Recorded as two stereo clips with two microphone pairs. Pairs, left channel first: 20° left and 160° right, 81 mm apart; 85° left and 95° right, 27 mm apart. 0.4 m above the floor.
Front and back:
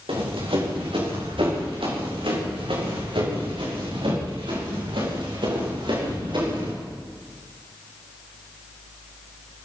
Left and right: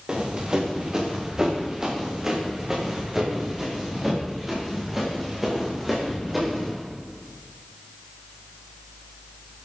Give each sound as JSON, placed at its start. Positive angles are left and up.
{"t": 0.1, "sound": "running footsteps", "azimuth_deg": -160, "distance_m": 6.5}